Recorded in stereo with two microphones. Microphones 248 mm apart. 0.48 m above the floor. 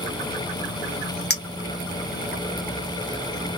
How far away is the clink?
About 0.7 m.